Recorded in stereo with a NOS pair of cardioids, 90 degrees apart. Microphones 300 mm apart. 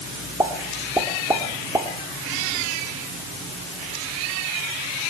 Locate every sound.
0.4 s a pop: 10° right, 2.5 m